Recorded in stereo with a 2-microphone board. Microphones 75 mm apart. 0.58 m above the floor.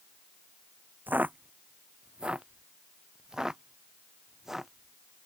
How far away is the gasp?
No gasp in this recording.